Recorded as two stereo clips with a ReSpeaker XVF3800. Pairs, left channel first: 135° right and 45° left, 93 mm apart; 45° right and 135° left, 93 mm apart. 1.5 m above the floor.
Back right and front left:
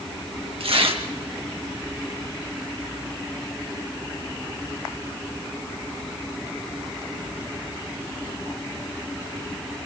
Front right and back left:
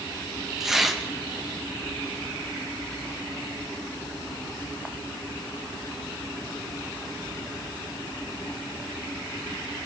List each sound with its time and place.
0.6 s tearing paper: 50° left, 2.5 m